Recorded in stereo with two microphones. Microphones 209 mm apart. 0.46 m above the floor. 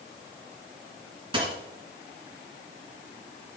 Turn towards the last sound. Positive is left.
turn(degrees=-25)  # may be behind; listen again after turning